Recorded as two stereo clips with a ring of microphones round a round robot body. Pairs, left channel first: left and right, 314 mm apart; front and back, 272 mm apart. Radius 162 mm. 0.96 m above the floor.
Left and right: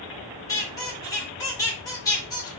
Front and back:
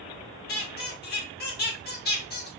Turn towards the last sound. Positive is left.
turn(degrees=20)